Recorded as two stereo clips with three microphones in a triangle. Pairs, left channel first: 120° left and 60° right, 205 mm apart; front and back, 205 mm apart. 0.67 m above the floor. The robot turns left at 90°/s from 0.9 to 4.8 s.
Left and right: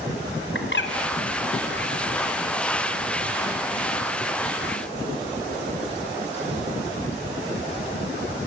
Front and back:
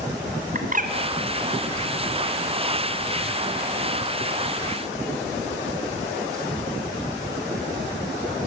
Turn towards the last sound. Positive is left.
turn(degrees=145)